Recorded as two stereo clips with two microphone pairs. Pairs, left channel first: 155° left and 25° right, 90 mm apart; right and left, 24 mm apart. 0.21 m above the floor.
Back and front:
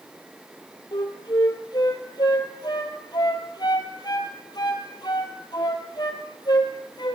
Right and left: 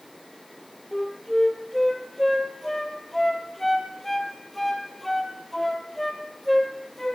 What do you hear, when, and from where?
0.9 s a flute: 165° right, 1.2 m